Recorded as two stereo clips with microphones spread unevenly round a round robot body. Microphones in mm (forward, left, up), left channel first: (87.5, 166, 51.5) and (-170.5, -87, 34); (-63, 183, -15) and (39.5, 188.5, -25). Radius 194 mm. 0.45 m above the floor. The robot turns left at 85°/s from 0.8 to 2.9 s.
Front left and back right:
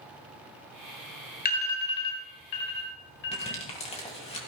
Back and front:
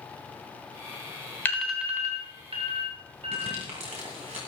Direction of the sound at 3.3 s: 30° right.